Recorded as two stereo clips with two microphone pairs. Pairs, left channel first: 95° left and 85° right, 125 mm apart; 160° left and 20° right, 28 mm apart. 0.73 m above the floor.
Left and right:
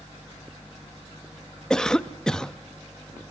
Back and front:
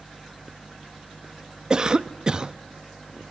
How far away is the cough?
About 0.5 m.